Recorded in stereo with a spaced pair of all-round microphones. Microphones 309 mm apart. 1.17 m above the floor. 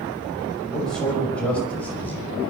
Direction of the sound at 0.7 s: Centre (ahead or behind).